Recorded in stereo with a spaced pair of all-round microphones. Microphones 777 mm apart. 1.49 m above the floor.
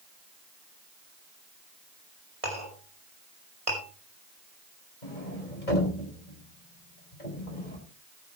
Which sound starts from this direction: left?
A sliding door, at 5.0 s.